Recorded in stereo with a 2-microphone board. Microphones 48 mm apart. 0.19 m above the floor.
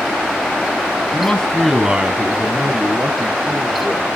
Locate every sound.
1.1 s a man speaking: 30° left (ahead or behind), 1.2 m; by 4.1 s 45° right (ahead or behind), 4 m